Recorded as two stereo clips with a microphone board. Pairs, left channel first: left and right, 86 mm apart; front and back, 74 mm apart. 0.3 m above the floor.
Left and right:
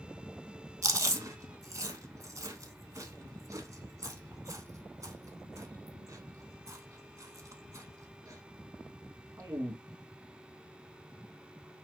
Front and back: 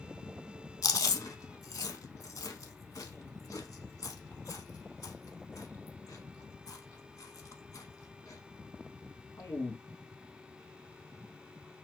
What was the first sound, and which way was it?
Chewing, 40° right.